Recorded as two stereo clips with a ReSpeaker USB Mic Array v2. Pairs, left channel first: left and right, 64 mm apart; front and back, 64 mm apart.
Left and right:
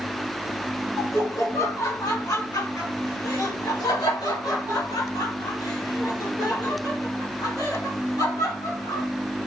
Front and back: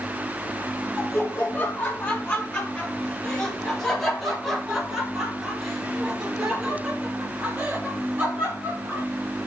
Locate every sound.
1.0 s laughter: 55° left, 3 m; by 9.1 s 110° left, 5 m